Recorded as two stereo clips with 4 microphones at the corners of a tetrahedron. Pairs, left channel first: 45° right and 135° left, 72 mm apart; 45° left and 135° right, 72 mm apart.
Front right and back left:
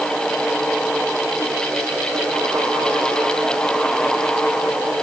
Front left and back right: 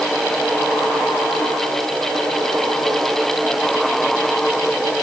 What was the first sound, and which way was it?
Only background noise.